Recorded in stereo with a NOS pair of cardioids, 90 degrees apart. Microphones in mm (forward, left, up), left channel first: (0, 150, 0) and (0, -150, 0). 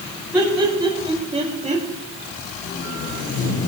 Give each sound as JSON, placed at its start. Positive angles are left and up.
{"t": 0.3, "sound": "laughter", "azimuth_deg": -5, "distance_m": 5.0}
{"t": 2.6, "sound": "tape being pulled", "azimuth_deg": 50, "distance_m": 3.0}